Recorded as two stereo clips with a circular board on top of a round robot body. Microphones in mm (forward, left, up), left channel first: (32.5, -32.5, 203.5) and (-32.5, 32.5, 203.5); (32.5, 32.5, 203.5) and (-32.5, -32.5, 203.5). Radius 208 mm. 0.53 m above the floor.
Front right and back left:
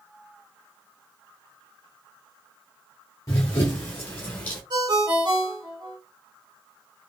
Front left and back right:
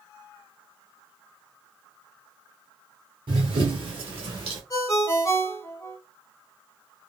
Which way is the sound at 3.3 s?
100° right.